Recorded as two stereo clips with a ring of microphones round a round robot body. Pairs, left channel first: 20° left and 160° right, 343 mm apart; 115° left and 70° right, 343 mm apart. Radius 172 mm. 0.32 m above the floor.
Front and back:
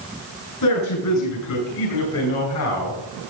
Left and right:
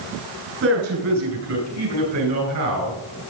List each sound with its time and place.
0.6 s a man speaking: 15° right, 5 m; by 3.0 s 25° right, 5.5 m